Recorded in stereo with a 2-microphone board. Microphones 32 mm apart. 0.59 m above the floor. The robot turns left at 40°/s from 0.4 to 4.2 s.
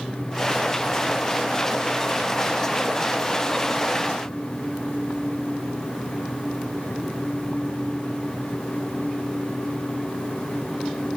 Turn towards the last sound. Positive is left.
No sound to turn to.